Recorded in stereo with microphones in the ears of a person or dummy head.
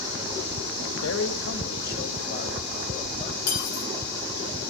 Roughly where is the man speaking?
Left.